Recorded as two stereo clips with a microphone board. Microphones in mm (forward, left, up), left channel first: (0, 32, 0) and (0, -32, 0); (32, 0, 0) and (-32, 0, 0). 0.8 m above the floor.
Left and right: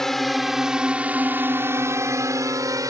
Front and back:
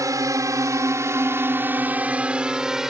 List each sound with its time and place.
0.0 s a drone: 175° left; by 2.9 s 100° right